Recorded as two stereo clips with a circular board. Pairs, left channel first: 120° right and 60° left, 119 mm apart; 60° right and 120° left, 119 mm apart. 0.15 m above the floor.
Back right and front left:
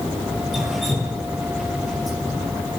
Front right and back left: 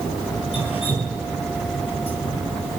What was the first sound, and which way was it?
Dripping, 30° right.